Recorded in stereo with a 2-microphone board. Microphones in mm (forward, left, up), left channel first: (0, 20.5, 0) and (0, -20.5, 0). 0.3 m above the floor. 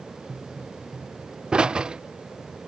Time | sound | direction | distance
0.3 | a pop | 25° right (ahead or behind) | ?